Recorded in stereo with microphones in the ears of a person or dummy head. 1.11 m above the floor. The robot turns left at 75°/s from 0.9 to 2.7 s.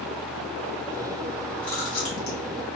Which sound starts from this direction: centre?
Chewing, at 1.6 s.